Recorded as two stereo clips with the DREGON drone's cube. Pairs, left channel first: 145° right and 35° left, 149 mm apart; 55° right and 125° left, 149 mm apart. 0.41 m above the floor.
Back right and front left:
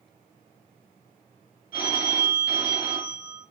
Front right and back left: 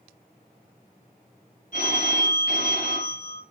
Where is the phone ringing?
20° right, 4 m.